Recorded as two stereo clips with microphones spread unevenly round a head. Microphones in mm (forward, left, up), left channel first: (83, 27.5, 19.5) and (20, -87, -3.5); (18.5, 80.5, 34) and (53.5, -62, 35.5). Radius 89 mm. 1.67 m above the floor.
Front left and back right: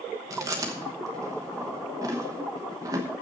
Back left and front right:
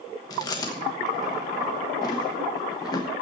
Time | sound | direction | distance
0.3 | chewing | 165° left | 1.0 m